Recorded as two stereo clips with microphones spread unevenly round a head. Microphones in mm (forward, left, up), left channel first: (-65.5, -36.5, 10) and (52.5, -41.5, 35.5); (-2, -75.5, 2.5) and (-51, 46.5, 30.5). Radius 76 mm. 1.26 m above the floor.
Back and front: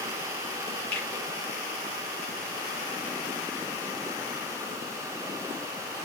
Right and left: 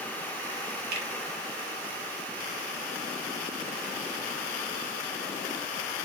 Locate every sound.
0.9 s a finger snap: 100° left, 0.7 m